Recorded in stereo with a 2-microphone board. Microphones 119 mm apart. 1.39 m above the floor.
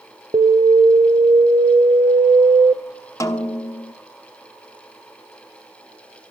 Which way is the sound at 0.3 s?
45° right (ahead or behind).